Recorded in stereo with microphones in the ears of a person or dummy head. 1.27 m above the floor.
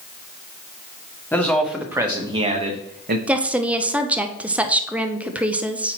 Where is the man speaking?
10° left (ahead or behind), 1.0 m; by 3.2 s 50° right (ahead or behind), 1.1 m.